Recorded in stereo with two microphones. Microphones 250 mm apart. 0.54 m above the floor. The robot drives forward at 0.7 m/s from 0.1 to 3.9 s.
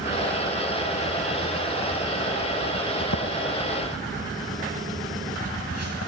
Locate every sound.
3.0 s footsteps: 60° left (ahead or behind), 2 m; by 6.1 s 75° left (ahead or behind), 3.5 m